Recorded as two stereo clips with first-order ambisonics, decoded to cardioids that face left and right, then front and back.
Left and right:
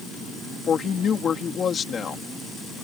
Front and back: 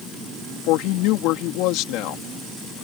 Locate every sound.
0.7 s a woman speaking: 25° left